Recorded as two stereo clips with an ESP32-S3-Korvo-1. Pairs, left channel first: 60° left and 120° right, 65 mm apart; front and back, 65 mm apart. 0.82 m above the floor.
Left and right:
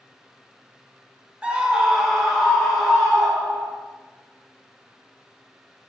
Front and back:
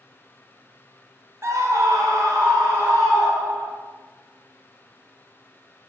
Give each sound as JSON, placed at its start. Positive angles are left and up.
{"t": 1.4, "sound": "a scream", "azimuth_deg": 175, "distance_m": 0.5}